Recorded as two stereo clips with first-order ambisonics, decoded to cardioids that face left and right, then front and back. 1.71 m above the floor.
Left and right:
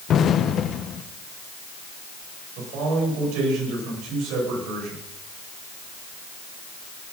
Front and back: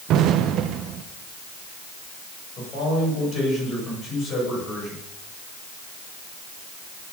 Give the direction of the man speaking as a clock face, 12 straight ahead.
2 o'clock.